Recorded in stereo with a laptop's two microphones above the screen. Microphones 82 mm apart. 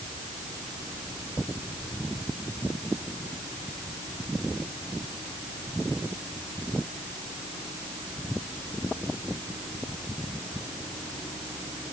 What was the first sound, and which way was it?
Only background noise.